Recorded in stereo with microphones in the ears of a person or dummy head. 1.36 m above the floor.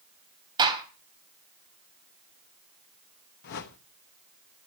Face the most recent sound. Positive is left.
turn(degrees=60)  # may be behind; listen again after turning